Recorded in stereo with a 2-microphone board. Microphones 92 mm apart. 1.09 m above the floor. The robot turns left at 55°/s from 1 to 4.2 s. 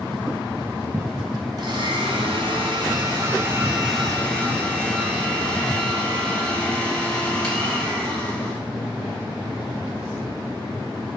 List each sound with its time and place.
1.6 s a blender: 50° right, 3 m; by 8.6 s 170° left, 3 m